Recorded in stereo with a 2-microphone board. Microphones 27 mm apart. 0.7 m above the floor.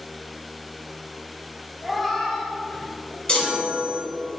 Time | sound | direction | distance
1.8 | a cat meowing | 5° right (ahead or behind) | 1.4 m
3.3 | a chime | 40° left (ahead or behind) | 2.5 m